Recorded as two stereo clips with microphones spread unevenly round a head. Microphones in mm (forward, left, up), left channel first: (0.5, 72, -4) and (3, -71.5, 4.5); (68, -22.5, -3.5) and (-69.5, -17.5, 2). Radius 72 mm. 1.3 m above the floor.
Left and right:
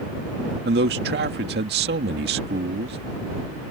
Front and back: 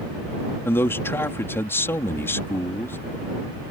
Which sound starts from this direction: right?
A man speaking, at 0.7 s.